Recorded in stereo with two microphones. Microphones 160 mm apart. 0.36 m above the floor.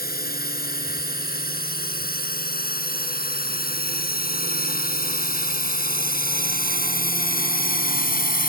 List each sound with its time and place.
0.0 s a drone: 70° left (ahead or behind); by 8.5 s 65° left (ahead or behind)